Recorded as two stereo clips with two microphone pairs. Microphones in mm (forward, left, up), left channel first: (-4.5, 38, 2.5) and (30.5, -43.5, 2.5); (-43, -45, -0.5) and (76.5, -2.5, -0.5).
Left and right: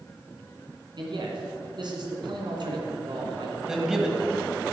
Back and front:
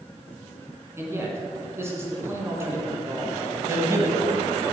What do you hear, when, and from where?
1.0 s a man speaking: 50° right, 2 m
3.7 s a man speaking: 5° left, 1.1 m